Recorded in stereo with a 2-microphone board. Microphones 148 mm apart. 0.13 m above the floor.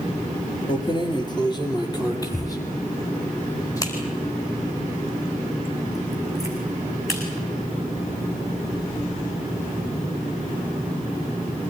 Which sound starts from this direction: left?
Keys jangling, at 0.7 s.